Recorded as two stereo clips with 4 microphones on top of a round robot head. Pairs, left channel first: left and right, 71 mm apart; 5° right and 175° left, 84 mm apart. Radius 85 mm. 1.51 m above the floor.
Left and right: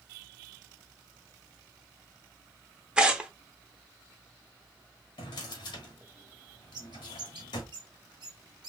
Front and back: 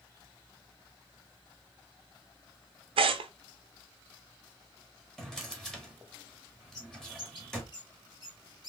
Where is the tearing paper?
170° right, 0.8 m.